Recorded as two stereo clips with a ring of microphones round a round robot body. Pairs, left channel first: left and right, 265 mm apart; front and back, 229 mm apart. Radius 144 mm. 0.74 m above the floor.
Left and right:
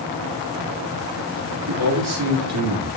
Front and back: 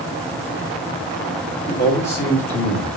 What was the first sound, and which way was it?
A man speaking, 75° right.